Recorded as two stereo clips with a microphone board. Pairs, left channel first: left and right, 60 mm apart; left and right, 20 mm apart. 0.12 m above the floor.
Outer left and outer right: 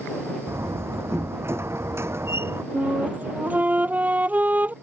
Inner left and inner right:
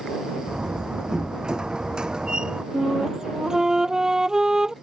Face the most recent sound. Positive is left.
turn(degrees=-30)  # may be behind; listen again after turning